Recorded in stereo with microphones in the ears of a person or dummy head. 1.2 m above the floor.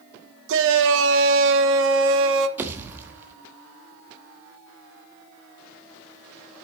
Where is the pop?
10° right (ahead or behind), 1.1 m.